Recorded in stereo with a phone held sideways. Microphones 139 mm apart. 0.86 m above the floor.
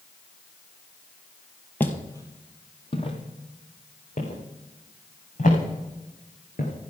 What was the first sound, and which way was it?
Footsteps, 15° left (ahead or behind).